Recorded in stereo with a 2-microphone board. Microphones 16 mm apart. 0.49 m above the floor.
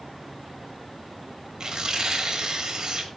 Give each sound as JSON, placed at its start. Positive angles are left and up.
{"t": 1.6, "sound": "tearing paper", "side_deg": -45, "distance_m": 2.0}